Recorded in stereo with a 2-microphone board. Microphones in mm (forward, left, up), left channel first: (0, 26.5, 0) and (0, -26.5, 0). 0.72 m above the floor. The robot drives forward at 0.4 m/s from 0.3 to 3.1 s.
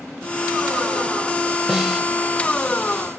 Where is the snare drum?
5° right (ahead or behind), 1.6 m.